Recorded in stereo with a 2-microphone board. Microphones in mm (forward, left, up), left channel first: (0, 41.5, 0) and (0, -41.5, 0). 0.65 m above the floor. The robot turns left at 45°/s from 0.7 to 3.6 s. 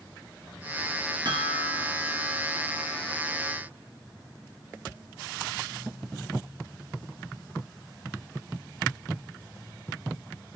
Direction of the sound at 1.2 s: 75° right.